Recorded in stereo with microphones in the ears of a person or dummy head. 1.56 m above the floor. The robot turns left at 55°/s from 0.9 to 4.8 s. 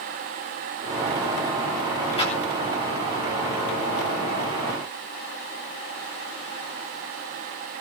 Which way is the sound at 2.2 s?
20° left (ahead or behind).